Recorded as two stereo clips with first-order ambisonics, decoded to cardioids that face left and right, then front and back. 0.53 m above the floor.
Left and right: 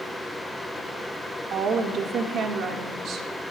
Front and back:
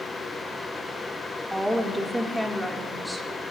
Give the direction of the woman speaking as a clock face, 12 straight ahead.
3 o'clock.